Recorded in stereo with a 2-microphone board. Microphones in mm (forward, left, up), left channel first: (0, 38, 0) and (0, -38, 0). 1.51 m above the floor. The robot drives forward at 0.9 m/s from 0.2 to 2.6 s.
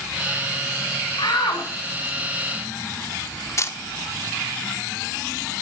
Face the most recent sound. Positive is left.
turn(degrees=40)  # may be behind; listen again after turning